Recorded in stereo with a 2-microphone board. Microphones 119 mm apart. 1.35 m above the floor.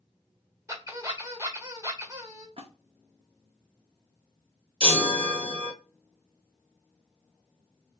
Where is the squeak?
25° right (ahead or behind), 1.2 m.